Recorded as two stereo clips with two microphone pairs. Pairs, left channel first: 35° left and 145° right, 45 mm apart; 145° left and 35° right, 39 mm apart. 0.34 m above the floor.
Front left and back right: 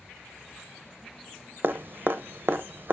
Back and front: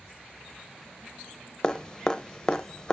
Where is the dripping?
150° right, 0.6 m.